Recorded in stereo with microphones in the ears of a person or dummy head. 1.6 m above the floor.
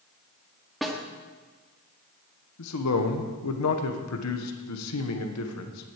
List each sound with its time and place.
0.8 s a snare drum: centre (ahead or behind), 1.3 m
2.6 s a man speaking: 85° left, 1.5 m